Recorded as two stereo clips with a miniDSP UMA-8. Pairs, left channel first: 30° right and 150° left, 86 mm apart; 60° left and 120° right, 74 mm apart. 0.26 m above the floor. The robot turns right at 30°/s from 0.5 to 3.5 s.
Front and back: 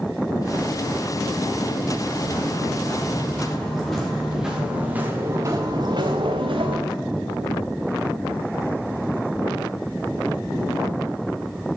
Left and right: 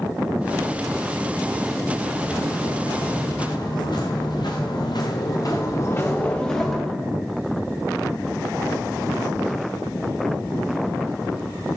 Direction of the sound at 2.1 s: Straight ahead.